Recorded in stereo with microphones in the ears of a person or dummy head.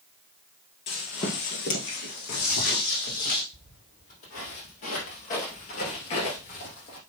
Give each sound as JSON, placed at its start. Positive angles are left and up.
{"t": 0.9, "sound": "footsteps", "side_deg": 30, "distance_m": 2.0}
{"t": 3.5, "sound": "footsteps", "side_deg": 45, "distance_m": 3.5}